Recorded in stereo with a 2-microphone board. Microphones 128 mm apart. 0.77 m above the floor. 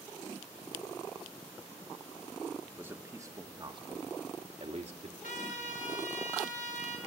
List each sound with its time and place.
2.6 s a man speaking: 10° right (ahead or behind), 1.4 m; by 5.1 s 65° right (ahead or behind), 1.3 m
5.2 s a trumpet: 75° left (ahead or behind), 2.5 m